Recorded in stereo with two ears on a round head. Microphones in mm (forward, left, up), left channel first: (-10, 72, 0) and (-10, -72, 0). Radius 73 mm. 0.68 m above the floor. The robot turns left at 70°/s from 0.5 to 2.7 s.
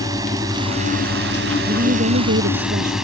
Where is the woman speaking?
40° right; by 3.0 s 115° right.